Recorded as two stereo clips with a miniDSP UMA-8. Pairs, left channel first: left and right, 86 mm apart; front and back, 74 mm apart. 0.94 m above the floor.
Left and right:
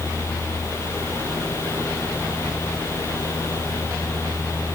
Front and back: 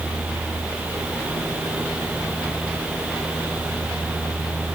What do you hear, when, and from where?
Only background noise.